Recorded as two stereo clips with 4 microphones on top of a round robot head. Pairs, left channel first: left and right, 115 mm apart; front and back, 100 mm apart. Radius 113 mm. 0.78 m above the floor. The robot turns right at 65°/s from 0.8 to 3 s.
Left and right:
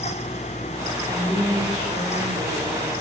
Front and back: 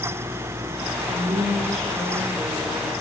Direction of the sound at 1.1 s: 165° right.